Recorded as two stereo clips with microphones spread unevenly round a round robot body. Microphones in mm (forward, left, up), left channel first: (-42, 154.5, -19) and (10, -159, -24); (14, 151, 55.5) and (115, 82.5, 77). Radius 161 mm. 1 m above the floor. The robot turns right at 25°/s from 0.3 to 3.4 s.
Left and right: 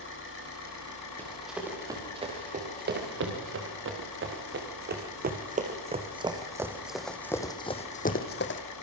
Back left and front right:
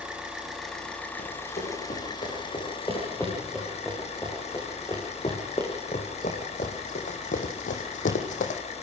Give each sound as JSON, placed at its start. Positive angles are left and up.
{"t": 0.0, "sound": "an engine running", "azimuth_deg": 50, "distance_m": 6.5}
{"t": 1.2, "sound": "running footsteps", "azimuth_deg": -175, "distance_m": 7.5}